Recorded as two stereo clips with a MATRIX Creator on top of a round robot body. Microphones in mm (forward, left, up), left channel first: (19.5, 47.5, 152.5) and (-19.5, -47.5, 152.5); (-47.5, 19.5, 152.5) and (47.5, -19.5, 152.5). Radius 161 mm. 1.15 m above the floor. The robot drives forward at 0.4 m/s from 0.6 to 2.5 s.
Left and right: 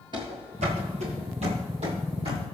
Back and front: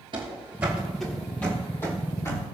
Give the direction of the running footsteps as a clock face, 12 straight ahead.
2 o'clock.